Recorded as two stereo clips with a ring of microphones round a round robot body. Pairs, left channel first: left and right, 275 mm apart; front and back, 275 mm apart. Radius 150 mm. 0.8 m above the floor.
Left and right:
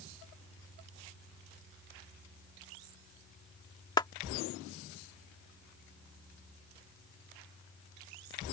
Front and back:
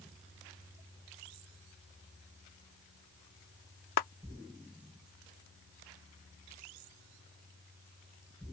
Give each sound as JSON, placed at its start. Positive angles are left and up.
{"t": 4.0, "sound": "a clap", "azimuth_deg": 15}